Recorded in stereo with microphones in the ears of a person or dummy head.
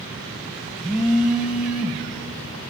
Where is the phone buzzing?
10° right (ahead or behind), 1.4 m.